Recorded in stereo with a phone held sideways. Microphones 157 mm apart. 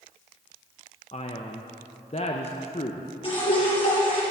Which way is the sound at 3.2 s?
35° left (ahead or behind).